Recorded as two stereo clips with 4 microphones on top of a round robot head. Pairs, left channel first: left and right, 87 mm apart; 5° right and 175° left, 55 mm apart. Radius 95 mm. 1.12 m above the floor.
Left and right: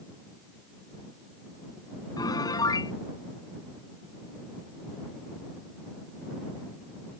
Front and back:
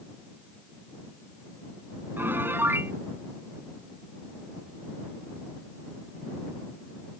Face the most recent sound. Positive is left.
turn(degrees=130)